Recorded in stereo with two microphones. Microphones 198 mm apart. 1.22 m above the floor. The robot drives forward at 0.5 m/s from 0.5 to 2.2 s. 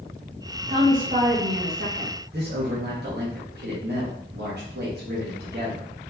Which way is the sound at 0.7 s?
45° right (ahead or behind).